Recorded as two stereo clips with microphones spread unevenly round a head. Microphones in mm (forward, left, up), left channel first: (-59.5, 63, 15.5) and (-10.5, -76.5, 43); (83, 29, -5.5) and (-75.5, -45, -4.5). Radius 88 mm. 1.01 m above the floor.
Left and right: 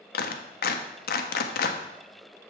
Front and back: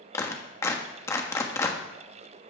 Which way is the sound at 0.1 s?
100° left.